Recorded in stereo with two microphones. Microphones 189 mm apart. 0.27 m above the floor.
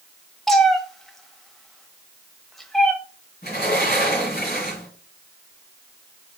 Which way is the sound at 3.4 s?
55° left (ahead or behind).